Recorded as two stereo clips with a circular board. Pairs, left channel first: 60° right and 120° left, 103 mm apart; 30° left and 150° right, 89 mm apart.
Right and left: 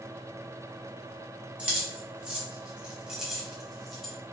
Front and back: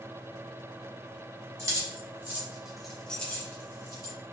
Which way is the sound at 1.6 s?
170° right.